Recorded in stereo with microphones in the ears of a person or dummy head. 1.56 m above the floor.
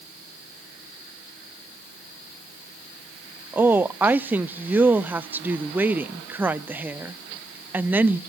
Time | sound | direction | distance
3.5 | a woman speaking | 10° right (ahead or behind) | 0.5 m